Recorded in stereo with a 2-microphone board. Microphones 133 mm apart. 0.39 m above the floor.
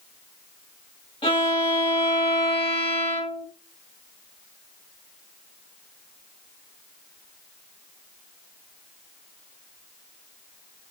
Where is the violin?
45° left (ahead or behind), 1.7 m.